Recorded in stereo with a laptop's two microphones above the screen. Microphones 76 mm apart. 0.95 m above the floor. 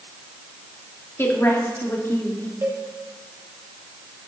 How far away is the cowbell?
About 1.3 m.